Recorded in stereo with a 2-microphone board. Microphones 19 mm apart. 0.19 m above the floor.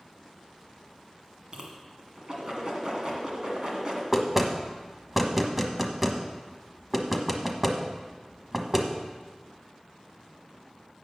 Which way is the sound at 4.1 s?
10° right (ahead or behind).